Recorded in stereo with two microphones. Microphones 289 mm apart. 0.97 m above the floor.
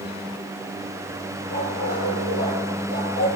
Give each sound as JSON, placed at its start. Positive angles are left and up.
{"t": 1.5, "sound": "a dog barking", "side_deg": -65, "distance_m": 8.5}